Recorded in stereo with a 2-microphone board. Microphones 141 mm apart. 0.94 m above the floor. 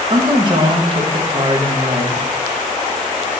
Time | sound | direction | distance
0.1 | a woman speaking | 35° right (ahead or behind) | 0.6 m